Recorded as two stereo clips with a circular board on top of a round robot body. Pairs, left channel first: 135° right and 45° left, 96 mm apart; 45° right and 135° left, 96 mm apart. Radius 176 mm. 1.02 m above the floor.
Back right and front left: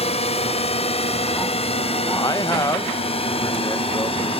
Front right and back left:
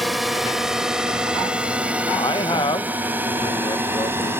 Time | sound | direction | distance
0.0 | a drone | 135° right | ?
2.1 | a man speaking | 85° right | ?